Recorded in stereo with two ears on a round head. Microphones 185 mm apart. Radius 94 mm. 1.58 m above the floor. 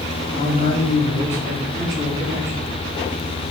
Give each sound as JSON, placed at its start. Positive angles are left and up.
{"t": 0.3, "sound": "a man speaking", "side_deg": 30, "distance_m": 4.0}